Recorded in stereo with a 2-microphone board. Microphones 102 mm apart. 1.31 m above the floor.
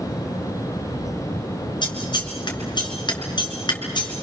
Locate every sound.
1.8 s scissors: 50° left (ahead or behind), 3.5 m